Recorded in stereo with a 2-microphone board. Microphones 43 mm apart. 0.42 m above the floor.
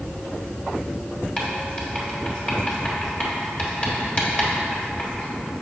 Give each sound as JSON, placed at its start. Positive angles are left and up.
{"t": 1.4, "sound": "writing", "side_deg": 25, "distance_m": 1.3}